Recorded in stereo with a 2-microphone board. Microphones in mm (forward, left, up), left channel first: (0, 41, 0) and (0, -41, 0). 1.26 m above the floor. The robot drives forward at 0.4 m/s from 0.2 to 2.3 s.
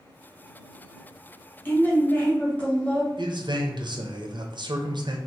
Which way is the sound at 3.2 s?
65° right (ahead or behind).